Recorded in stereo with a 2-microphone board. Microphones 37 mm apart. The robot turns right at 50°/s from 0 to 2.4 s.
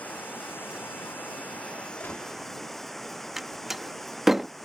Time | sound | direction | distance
0.0 | running water | 55° left | ?
2.0 | a gunshot | 85° left | ?
3.4 | a door slam | 10° right (ahead or behind) | ?